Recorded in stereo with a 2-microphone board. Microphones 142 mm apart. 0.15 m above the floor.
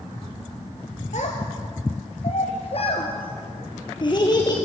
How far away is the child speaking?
About 2.0 m.